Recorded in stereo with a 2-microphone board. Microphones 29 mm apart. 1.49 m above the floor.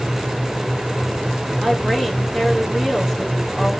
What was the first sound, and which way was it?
A woman speaking, 15° left (ahead or behind).